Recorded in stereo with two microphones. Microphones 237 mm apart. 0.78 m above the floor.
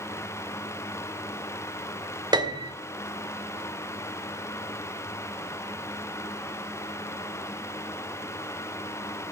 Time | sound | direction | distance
2.3 | a piano | 20° right (ahead or behind) | 1.3 m